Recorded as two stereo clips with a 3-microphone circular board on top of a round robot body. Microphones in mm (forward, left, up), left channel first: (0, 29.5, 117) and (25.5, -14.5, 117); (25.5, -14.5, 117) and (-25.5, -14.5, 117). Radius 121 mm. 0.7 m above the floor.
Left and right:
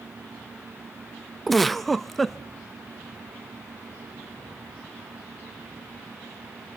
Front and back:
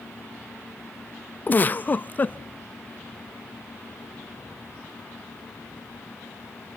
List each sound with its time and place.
1.5 s a giggle: 35° left, 0.8 m